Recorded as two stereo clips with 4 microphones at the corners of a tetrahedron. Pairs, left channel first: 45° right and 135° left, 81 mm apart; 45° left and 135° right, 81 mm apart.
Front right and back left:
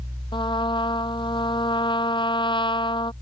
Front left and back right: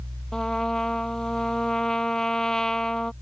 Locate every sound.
0.3 s a trumpet: 35° right